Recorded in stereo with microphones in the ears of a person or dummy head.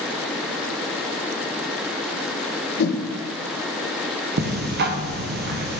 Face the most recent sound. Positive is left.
turn(degrees=-50)  # may be behind; listen again after turning